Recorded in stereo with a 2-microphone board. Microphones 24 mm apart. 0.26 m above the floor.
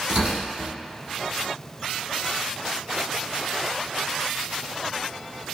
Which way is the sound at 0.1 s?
40° right (ahead or behind).